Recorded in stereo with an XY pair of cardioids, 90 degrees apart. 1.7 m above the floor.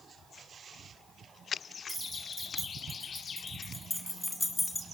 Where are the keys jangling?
20° right, 3.5 m; by 4.8 s 25° left, 4.5 m.